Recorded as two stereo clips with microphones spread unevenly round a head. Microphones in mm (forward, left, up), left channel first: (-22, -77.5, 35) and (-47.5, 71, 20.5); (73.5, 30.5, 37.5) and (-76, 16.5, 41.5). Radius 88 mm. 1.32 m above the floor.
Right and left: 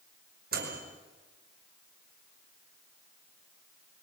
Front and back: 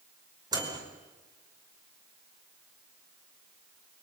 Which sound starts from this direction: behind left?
A microwave, at 0.5 s.